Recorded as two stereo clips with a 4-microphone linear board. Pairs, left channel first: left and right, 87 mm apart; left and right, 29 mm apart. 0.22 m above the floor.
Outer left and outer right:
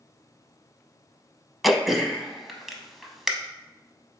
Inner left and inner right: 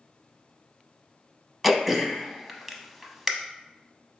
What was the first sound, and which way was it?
Throat clearing, centre (ahead or behind).